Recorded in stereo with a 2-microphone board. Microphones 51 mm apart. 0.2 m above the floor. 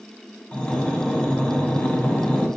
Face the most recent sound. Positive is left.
turn(degrees=25)  # may be behind; listen again after turning